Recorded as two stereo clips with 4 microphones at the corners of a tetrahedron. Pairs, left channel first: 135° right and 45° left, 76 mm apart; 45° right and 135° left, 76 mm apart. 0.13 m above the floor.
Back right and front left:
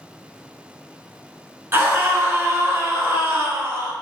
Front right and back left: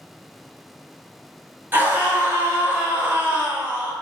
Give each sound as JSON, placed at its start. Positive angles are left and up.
{"t": 1.7, "sound": "a scream", "azimuth_deg": 85, "distance_m": 1.3}